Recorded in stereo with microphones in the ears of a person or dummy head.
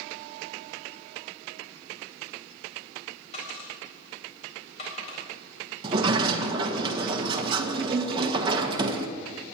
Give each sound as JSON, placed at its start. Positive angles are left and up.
{"t": 3.3, "sound": "a dropped coin", "side_deg": 40, "distance_m": 4.5}
{"t": 5.8, "sound": "a sliding door", "side_deg": -25, "distance_m": 1.2}